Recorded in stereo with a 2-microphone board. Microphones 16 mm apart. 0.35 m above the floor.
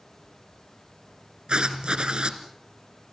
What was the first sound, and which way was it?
Writing, 85° right.